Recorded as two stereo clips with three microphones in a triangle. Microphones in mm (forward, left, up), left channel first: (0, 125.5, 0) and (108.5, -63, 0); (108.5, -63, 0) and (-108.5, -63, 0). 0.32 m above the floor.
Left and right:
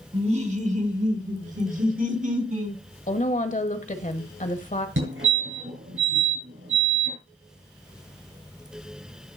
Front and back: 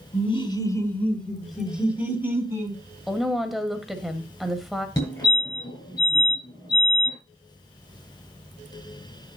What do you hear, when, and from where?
0.1 s laughter: 30° right, 1.6 m; by 2.8 s 105° right, 3 m
3.1 s a woman speaking: 90° left, 1.5 m
5.0 s a fire alarm: 75° right, 7 m